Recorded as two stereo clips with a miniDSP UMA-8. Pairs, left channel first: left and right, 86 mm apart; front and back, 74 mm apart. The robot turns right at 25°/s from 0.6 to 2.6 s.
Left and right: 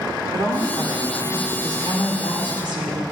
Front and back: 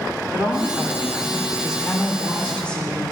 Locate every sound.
0.3 s a woman speaking: 125° right, 2 m; by 3.0 s 75° right, 2 m